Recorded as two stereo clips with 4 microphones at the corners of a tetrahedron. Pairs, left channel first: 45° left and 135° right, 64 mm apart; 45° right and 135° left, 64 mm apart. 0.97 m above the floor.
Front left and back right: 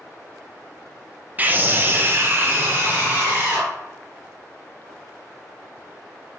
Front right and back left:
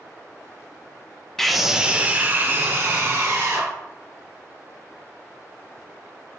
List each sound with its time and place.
1.4 s a scream: 120° right, 0.7 m; by 3.7 s 170° left, 1.7 m